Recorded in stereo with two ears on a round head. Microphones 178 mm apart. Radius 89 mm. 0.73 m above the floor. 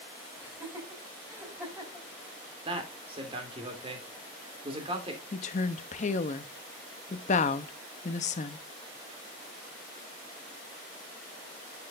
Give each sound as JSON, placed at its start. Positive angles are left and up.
{"t": 0.4, "sound": "laughter", "side_deg": -10, "distance_m": 4.0}
{"t": 2.6, "sound": "a man speaking", "side_deg": -30, "distance_m": 2.5}
{"t": 5.3, "sound": "a woman speaking", "side_deg": 40, "distance_m": 0.7}